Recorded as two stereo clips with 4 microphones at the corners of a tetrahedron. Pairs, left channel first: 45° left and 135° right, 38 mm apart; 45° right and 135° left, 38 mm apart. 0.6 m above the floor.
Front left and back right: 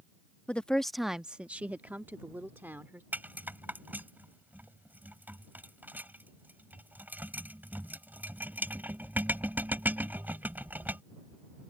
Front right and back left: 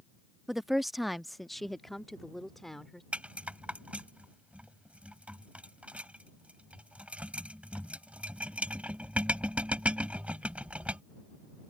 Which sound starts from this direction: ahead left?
A woman speaking, at 0.5 s.